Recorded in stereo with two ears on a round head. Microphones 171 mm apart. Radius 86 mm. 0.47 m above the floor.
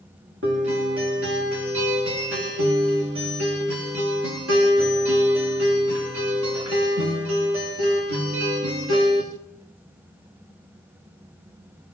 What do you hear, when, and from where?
0.4 s a guitar: 70° right (ahead or behind), 9.5 m